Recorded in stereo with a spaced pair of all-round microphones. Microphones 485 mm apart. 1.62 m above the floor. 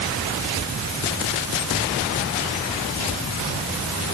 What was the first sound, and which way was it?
Only background noise.